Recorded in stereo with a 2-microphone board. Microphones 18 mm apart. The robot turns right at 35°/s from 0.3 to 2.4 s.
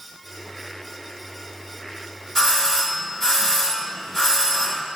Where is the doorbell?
15° left (ahead or behind), 1.2 m.